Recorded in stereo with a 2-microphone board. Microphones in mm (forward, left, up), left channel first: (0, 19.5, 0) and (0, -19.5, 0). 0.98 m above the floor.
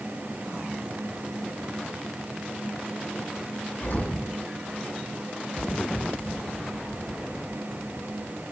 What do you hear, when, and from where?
3.8 s an explosion: 65° left (ahead or behind), 7.5 m